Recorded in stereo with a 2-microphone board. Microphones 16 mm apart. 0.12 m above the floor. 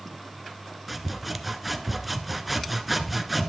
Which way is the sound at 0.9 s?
5° right (ahead or behind).